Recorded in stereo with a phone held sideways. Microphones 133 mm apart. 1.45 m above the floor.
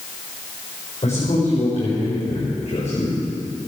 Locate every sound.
1.0 s a man speaking: 55° left (ahead or behind), 6.5 m